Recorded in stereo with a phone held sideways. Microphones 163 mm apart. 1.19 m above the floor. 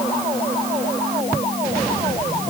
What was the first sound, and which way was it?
Only background noise.